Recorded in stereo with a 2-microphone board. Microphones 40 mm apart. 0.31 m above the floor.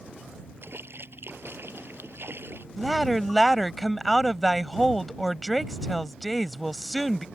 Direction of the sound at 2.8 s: 5° left (ahead or behind).